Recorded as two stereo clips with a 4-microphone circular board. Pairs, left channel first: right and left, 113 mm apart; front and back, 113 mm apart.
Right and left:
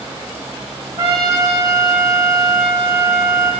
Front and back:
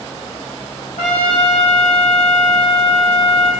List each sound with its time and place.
1.0 s a trumpet: 30° left, 2.5 m